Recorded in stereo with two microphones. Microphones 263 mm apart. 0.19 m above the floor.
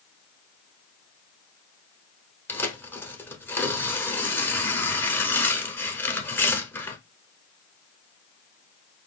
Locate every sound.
2.5 s tearing paper: 10° left (ahead or behind), 0.8 m